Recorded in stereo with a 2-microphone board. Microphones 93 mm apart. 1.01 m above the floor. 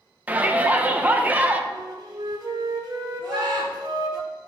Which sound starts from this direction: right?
A flute, at 1.7 s.